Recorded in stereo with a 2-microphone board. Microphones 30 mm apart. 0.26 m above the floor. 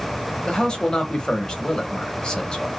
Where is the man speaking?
25° left (ahead or behind), 0.9 m.